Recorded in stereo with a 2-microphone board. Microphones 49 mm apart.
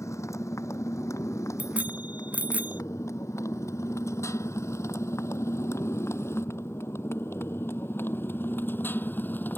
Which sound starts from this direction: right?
A bicycle bell, at 1.6 s.